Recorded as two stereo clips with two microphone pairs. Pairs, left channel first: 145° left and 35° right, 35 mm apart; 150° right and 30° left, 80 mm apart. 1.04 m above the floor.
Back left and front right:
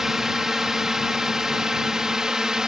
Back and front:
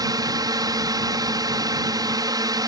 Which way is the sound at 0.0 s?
40° left.